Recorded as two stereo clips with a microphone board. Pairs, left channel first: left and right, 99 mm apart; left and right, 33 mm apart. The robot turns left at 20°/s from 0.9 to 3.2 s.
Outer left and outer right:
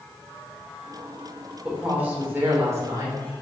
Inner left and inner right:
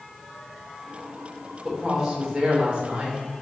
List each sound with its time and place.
1.6 s a woman speaking: 10° right, 3 m; by 3.2 s 40° right, 3 m